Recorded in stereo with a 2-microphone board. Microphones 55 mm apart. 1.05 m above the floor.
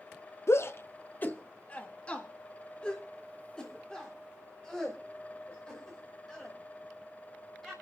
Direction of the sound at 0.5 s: 55° left (ahead or behind).